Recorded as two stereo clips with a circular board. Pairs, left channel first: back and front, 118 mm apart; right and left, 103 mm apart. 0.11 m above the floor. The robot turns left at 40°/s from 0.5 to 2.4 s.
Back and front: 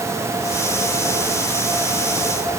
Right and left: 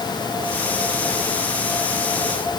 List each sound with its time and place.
Only background noise.